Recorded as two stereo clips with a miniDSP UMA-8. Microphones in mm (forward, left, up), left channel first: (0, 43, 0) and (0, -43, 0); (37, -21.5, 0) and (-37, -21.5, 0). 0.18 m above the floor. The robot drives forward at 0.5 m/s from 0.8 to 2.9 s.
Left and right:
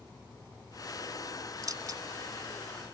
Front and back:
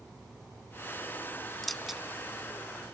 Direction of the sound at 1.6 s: 85° right.